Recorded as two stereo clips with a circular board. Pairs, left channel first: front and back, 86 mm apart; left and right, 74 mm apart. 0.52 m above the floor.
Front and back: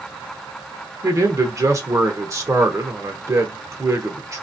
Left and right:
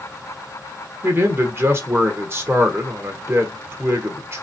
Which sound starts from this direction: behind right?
A man speaking, at 1.0 s.